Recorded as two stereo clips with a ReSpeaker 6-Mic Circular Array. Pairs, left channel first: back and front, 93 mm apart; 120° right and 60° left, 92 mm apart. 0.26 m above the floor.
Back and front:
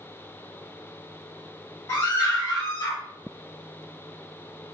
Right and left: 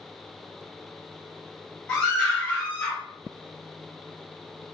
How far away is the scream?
About 1.2 m.